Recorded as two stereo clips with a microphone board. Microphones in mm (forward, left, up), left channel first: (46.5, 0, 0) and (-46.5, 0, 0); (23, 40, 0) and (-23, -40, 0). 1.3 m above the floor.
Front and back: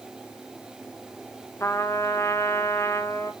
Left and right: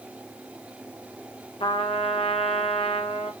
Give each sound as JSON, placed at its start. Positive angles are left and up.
{"t": 1.6, "sound": "a trumpet", "azimuth_deg": 60, "distance_m": 0.8}